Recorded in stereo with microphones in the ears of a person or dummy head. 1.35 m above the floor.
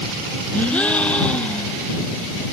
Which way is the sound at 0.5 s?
5° left (ahead or behind).